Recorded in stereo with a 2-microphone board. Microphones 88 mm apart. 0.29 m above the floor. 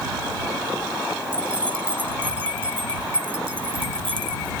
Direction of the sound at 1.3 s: 70° right (ahead or behind).